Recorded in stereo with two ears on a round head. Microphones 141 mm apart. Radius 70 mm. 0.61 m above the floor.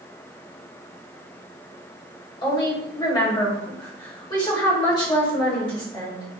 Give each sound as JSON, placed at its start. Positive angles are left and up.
{"t": 2.4, "sound": "a woman speaking", "side_deg": 30, "distance_m": 2.0}